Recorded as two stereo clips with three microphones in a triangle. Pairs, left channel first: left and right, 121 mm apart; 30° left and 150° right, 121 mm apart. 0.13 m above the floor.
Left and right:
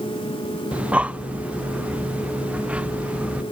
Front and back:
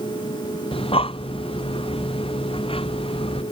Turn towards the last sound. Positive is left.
turn(degrees=-10)